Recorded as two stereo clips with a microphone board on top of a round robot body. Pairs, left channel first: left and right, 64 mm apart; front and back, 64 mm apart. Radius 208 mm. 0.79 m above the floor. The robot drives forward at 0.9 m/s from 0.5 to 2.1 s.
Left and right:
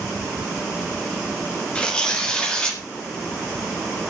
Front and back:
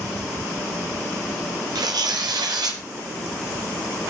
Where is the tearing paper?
165° left, 1.6 m; by 2.8 s 170° left, 1.9 m.